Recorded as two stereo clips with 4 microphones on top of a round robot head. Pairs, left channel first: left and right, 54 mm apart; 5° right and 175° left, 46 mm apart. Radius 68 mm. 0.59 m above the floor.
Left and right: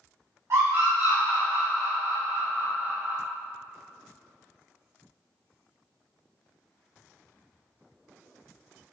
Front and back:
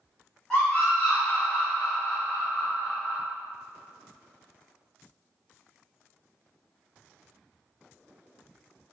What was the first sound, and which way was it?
A scream, 75° right.